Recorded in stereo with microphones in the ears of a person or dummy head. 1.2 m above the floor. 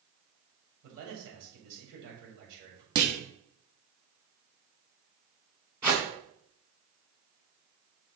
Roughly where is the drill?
I don't hear a drill.